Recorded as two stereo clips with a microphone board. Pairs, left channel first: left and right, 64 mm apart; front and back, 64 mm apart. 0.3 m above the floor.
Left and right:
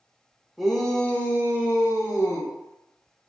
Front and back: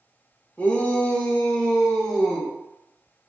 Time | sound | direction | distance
0.6 | a shout | 5° right | 0.9 m